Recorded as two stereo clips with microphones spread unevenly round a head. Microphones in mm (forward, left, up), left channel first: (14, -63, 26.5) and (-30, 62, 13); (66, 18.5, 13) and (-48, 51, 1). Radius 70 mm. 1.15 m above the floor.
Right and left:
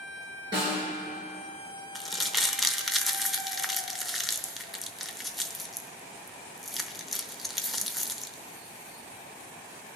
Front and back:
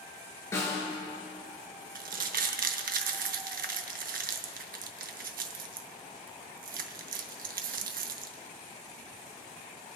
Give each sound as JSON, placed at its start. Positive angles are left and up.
{"t": 0.5, "sound": "a snare drum", "azimuth_deg": 50, "distance_m": 5.5}
{"t": 1.9, "sound": "crumpling", "azimuth_deg": -160, "distance_m": 0.6}